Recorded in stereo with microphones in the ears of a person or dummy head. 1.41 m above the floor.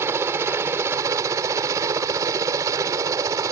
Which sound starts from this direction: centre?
A helicopter, at 0.0 s.